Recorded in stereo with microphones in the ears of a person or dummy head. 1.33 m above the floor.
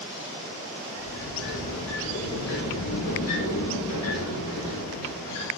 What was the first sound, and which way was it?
A sliding door, 80° left.